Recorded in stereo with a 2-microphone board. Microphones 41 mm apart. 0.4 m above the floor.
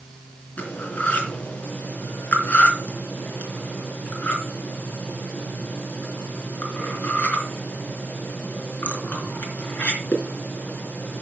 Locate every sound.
0.6 s cutlery clinking: 40° left (ahead or behind), 3.5 m